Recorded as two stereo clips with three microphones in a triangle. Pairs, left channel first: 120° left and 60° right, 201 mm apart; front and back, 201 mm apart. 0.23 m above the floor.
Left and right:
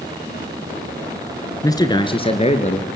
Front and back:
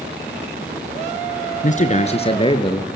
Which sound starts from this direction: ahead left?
A man speaking, at 1.6 s.